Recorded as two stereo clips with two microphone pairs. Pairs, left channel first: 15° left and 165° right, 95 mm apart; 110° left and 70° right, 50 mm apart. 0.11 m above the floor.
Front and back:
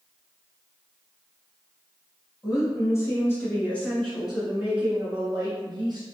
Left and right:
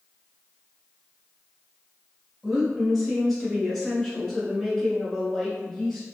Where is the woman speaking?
25° left, 1.6 m; by 6.0 s 175° right, 1.6 m.